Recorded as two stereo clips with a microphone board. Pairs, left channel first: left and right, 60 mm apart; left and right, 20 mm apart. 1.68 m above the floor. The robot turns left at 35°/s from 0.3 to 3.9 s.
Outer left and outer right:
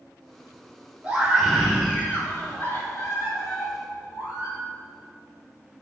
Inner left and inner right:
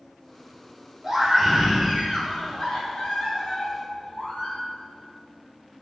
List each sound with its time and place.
1.0 s a scream: 165° right, 4 m; by 4.6 s 95° left, 4 m